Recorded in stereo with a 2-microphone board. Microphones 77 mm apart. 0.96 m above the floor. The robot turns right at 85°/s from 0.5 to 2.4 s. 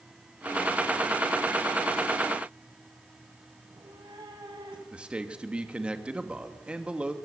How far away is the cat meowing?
About 4 m.